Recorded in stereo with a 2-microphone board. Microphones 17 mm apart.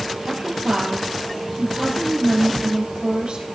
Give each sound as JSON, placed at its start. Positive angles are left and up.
{"t": 0.2, "sound": "a woman speaking", "side_deg": -65, "distance_m": 3.0}